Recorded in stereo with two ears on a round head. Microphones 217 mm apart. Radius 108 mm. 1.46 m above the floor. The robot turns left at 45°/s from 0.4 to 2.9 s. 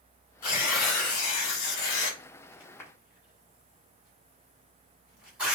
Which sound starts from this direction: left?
Tearing paper, at 0.4 s.